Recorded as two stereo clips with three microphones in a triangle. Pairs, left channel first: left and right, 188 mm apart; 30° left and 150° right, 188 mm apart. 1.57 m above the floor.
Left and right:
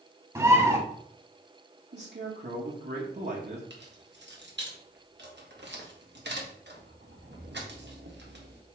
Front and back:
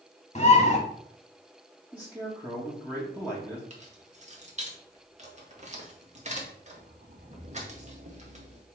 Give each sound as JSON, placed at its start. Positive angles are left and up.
{"t": 0.3, "sound": "a bird", "azimuth_deg": -20, "distance_m": 1.7}
{"t": 1.9, "sound": "a man speaking", "azimuth_deg": -70, "distance_m": 1.7}
{"t": 3.7, "sound": "keys jangling", "azimuth_deg": -100, "distance_m": 1.6}